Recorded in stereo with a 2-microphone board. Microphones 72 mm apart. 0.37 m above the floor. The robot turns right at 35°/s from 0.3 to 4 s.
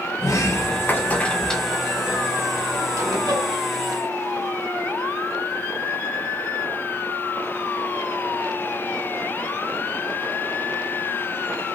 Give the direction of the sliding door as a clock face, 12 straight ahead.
8 o'clock.